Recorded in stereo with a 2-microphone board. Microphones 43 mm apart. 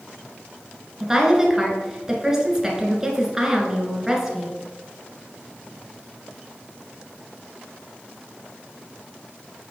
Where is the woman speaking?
10° right (ahead or behind), 1.4 m.